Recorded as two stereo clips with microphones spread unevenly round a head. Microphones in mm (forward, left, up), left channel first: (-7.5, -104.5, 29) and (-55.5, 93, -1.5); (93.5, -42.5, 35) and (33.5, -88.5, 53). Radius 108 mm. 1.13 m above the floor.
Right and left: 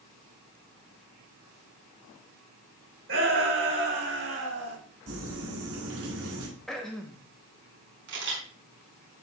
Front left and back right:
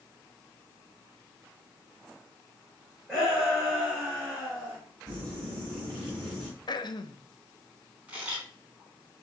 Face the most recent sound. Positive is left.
turn(degrees=135)